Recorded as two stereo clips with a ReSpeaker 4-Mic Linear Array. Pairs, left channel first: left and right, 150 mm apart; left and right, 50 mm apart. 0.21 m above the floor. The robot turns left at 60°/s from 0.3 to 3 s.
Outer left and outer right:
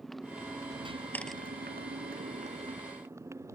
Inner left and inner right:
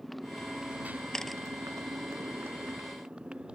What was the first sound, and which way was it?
A motorcycle, straight ahead.